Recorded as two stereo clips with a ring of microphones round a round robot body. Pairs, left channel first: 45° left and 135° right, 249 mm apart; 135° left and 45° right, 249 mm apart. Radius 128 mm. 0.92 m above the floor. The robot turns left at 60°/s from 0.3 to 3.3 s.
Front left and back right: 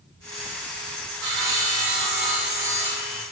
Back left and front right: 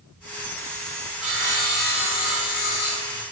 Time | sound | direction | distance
1.2 | sawing | 130° right | 2.5 m